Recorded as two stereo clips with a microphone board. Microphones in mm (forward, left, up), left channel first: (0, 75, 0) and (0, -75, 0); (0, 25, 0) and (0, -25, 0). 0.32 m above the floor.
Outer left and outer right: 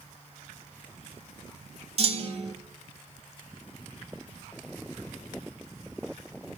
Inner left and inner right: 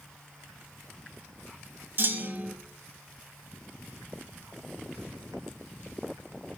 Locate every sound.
2.0 s a clunk: 45° right (ahead or behind), 1.0 m